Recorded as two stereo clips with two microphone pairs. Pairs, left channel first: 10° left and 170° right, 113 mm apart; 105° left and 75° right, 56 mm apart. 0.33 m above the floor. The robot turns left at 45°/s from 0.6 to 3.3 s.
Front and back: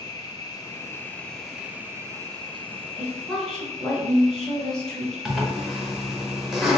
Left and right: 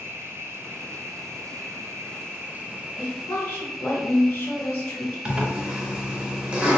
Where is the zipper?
90° right, 0.7 m.